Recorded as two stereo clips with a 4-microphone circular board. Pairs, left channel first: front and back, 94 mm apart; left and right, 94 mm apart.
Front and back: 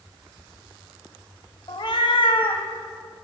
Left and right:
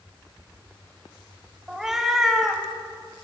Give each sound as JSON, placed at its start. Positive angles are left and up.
{"t": 1.7, "sound": "a cat meowing", "azimuth_deg": -5, "distance_m": 0.6}